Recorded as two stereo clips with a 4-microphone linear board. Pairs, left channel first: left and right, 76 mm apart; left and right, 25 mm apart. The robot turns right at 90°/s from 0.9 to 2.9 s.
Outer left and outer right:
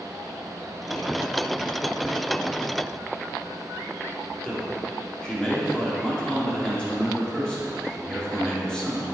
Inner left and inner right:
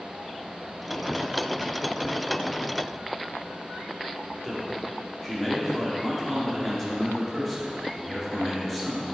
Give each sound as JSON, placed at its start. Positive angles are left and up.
{"t": 4.4, "sound": "a man speaking", "side_deg": 10, "distance_m": 2.5}